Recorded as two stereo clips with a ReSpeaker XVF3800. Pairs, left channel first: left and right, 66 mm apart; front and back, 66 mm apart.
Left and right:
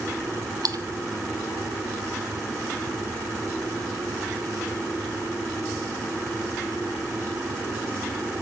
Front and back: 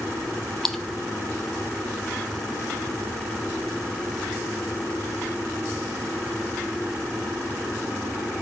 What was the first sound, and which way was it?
A splash, 85° right.